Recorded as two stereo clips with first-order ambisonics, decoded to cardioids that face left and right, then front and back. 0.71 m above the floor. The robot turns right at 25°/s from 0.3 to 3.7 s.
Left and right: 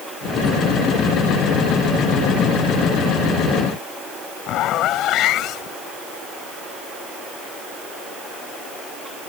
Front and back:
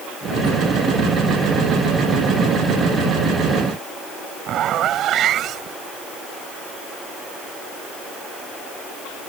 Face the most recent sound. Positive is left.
turn(degrees=130)